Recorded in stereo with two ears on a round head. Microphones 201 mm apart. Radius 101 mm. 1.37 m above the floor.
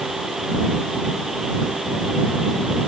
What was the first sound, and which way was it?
Only background noise.